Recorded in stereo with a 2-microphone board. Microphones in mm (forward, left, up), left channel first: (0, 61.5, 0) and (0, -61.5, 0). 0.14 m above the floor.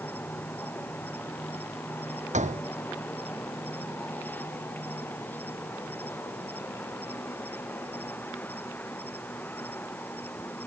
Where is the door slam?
75° right (ahead or behind).